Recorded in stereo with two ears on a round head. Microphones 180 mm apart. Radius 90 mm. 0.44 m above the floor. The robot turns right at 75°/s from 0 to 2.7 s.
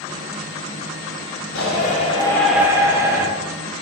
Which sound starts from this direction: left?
A shout, at 1.6 s.